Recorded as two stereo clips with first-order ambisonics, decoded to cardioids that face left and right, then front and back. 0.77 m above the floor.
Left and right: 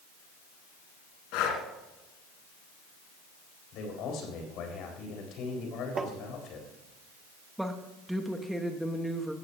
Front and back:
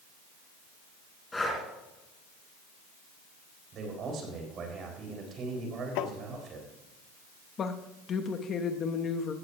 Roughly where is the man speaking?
Behind left.